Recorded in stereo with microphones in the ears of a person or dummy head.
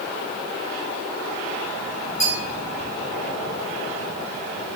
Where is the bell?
50° left (ahead or behind), 2 m.